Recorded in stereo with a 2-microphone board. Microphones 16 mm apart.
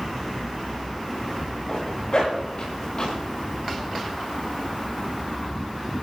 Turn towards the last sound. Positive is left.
turn(degrees=65)  # may be behind; listen again after turning